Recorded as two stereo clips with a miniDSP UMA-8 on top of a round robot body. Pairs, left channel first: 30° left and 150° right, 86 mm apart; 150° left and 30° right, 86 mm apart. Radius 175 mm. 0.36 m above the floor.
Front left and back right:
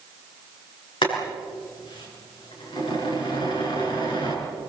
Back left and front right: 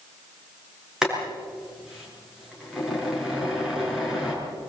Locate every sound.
1.0 s boiling: 55° left, 6 m